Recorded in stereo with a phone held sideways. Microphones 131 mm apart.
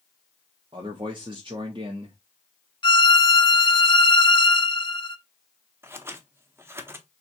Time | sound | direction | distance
0.7 | a man speaking | 40° right (ahead or behind) | 0.8 m
2.8 | a violin | 40° left (ahead or behind) | 0.6 m
5.8 | scissors | 20° right (ahead or behind) | 0.7 m